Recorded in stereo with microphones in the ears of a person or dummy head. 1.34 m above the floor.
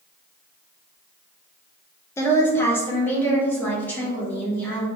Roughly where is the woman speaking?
Centre.